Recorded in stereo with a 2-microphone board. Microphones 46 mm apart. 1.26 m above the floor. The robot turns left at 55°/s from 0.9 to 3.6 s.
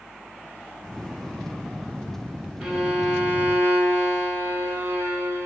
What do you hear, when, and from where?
2.6 s a violin: 10° right, 1.5 m; by 5.5 s 65° right, 1.5 m